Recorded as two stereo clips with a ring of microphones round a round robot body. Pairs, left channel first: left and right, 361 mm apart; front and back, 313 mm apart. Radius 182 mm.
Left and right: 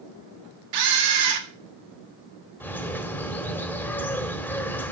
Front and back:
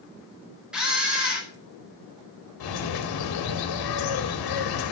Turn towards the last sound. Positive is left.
turn(degrees=5)